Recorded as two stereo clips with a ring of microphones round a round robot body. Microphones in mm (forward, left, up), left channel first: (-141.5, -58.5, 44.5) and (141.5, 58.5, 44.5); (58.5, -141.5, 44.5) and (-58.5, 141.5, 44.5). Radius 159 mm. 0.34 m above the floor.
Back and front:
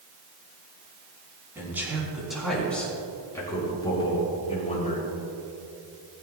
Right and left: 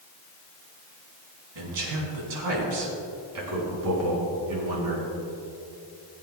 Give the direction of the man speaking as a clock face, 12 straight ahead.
9 o'clock.